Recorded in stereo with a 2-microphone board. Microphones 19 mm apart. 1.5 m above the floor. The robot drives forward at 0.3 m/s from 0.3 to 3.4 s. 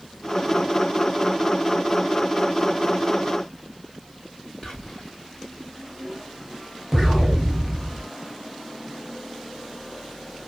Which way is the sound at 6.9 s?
5° right (ahead or behind).